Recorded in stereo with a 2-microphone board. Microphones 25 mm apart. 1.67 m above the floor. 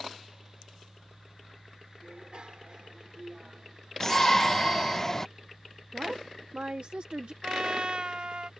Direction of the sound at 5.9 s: 50° right (ahead or behind).